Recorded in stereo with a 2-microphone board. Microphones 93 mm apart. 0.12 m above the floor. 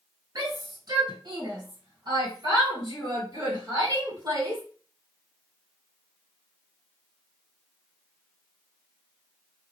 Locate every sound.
0.3 s a shout: 45° right (ahead or behind), 2 m; by 4.6 s 30° right (ahead or behind), 3 m